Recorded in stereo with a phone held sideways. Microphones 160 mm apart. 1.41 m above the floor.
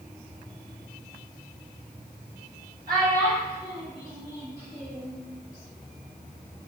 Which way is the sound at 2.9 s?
65° right (ahead or behind).